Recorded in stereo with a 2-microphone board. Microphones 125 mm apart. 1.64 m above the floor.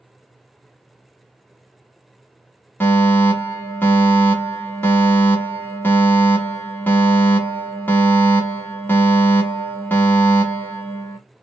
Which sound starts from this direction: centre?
A fire alarm, at 2.8 s.